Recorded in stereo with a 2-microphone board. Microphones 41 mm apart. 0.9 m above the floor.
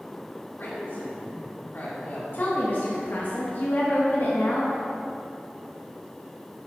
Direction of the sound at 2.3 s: 55° left (ahead or behind).